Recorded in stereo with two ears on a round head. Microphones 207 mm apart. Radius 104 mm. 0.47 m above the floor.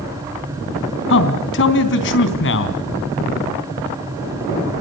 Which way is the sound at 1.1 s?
55° left (ahead or behind).